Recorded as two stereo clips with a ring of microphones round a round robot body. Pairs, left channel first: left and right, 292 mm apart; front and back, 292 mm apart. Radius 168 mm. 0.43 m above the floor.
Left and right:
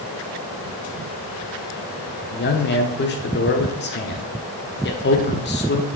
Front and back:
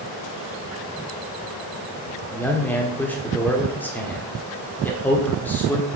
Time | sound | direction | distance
2.3 | a man speaking | 80° left | 1.2 m